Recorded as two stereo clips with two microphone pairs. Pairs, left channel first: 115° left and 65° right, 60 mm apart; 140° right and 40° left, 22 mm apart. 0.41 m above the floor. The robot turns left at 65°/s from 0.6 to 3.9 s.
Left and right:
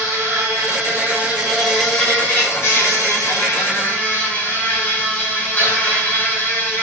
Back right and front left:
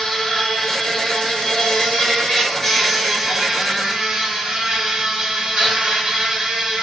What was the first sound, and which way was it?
An insect, 80° right.